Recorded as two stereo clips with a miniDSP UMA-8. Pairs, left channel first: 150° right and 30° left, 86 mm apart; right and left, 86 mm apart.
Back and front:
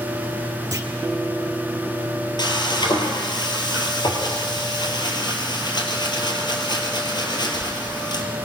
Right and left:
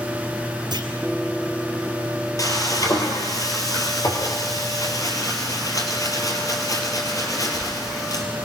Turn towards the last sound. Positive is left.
turn(degrees=-130)